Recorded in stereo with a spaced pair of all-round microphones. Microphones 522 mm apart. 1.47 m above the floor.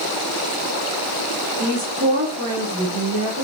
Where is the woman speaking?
40° right (ahead or behind), 4.5 m.